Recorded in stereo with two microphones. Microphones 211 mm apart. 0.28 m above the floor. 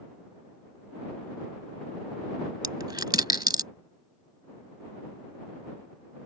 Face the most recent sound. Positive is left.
turn(degrees=-20)  # may be behind; listen again after turning